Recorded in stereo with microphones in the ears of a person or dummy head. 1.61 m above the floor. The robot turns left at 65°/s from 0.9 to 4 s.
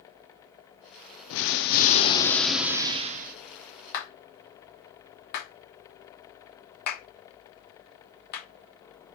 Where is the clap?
50° left (ahead or behind), 1.3 m.